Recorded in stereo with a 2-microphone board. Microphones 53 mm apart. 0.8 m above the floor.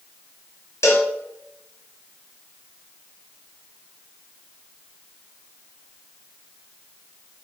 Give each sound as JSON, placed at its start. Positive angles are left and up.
{"t": 0.8, "sound": "a cowbell", "side_deg": 65, "distance_m": 0.7}